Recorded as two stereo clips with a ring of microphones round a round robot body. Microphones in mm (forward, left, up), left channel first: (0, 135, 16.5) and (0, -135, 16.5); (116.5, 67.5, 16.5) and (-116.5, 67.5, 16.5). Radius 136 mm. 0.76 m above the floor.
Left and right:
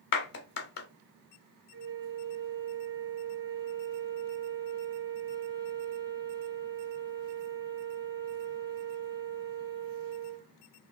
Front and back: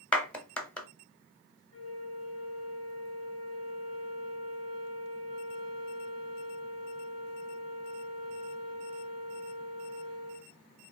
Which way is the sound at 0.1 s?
80° left.